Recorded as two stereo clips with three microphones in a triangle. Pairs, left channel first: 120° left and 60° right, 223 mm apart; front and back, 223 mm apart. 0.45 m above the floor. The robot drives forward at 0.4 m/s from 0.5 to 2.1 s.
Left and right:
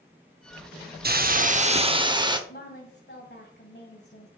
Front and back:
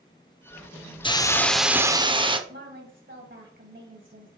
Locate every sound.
1.0 s a hiss: 60° right, 0.6 m; by 2.4 s 120° right, 0.6 m
2.5 s a woman speaking: 155° left, 2.5 m